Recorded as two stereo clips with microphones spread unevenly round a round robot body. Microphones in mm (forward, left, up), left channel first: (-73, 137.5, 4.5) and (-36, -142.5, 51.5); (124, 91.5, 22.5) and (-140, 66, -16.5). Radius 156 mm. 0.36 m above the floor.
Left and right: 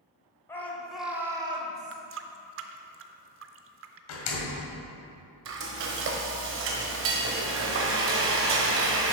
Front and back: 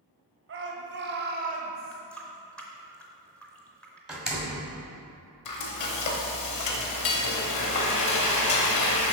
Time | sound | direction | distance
0.5 | a shout | 170° left | 1.7 m
1.9 | a running tap | 90° right | 0.5 m
4.1 | a door slam | 105° left | 1.7 m
5.5 | frying | 30° right | 0.8 m